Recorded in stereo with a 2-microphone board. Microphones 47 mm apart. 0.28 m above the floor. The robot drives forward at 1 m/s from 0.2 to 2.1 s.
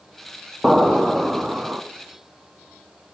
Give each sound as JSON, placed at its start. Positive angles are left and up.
{"t": 0.6, "sound": "an explosion", "side_deg": -10, "distance_m": 1.9}